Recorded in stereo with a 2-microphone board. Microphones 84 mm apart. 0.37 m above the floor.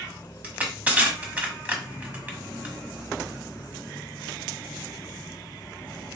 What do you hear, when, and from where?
0.4 s crushing: 20° right (ahead or behind), 1.1 m